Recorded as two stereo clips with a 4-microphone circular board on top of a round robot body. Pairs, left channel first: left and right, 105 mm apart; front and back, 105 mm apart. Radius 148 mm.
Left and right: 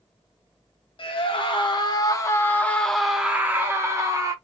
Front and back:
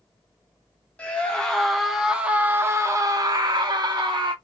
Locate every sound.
1.0 s a scream: 75° left, 1.2 m; by 4.3 s 140° right, 1.2 m